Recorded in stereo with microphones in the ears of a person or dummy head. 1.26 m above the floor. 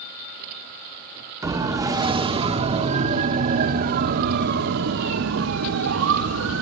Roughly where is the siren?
Centre.